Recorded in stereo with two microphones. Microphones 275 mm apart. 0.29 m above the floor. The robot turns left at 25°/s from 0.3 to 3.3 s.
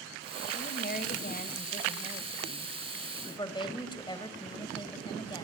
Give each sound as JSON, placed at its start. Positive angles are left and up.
{"t": 0.5, "sound": "a woman speaking", "azimuth_deg": 100, "distance_m": 1.6}